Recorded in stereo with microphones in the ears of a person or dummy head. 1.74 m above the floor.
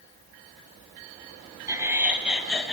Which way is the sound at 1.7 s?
20° right (ahead or behind).